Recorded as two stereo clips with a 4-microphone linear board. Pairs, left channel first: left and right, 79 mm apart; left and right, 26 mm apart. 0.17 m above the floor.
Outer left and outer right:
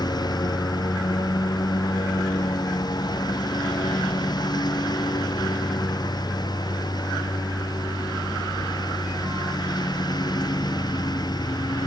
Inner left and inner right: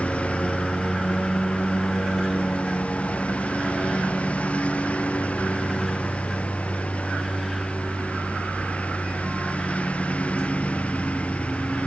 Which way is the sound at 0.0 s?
60° left (ahead or behind).